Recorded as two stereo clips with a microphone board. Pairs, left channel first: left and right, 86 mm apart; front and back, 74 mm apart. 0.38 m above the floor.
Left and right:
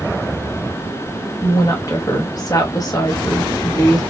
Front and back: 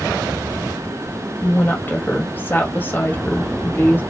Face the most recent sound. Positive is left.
turn(degrees=55)